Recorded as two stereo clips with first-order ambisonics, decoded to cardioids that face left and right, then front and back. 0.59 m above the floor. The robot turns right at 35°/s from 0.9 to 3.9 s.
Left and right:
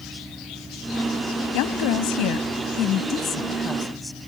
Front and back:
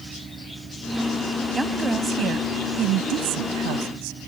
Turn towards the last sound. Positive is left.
turn(degrees=175)